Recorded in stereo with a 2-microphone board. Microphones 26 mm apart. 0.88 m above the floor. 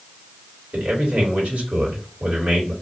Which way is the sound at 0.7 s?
65° right (ahead or behind).